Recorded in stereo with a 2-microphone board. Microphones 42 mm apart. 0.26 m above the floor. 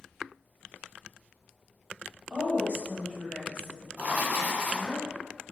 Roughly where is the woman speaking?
Right.